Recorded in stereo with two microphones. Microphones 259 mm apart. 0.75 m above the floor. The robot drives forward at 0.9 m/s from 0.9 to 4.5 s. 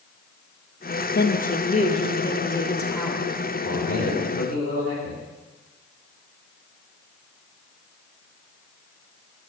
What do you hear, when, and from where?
1.1 s a woman speaking: 40° left (ahead or behind), 0.7 m; by 3.3 s 10° left (ahead or behind), 2.5 m
3.6 s a man speaking: 60° left (ahead or behind), 2.5 m; by 5.2 s 50° left (ahead or behind), 3 m